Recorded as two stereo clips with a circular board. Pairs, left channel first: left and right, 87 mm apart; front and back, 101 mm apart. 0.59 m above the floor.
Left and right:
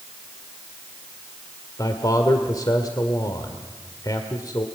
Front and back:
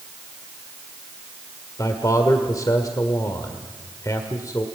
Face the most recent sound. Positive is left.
turn(degrees=50)